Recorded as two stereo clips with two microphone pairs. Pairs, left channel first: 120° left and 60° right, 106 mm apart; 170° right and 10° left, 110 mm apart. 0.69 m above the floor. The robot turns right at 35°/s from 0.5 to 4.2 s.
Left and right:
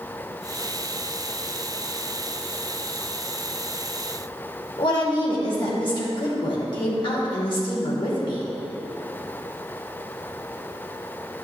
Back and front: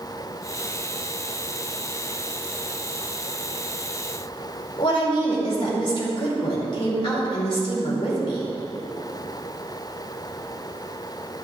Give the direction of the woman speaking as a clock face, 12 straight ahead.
7 o'clock.